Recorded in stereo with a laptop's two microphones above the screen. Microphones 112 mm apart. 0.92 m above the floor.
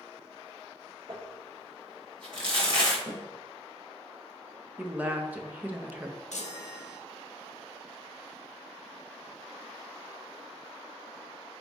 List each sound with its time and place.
1.1 s crumpling: 45° right (ahead or behind), 1.1 m
3.1 s a snare drum: 25° left (ahead or behind), 1.5 m
4.8 s a woman speaking: 15° right (ahead or behind), 0.5 m
6.3 s a chime: 85° left, 0.5 m